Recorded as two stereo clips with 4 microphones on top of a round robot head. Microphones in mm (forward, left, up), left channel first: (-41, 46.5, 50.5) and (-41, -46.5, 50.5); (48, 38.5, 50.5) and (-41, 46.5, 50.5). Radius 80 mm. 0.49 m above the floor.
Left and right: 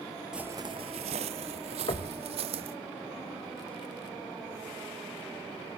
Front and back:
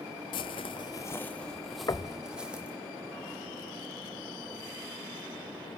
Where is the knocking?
45° left, 1.6 m.